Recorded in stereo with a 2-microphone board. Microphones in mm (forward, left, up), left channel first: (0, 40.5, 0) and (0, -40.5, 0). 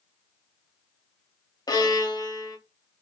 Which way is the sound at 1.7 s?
45° left (ahead or behind).